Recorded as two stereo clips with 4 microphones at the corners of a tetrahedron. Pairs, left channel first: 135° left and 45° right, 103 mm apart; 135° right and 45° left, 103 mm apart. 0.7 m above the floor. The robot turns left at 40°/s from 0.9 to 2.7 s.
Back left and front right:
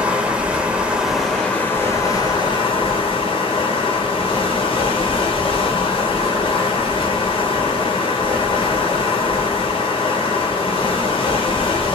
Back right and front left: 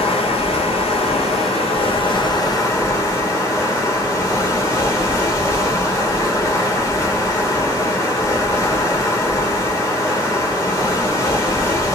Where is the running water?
125° right, 1.3 m; by 12.0 s 165° left, 1.3 m.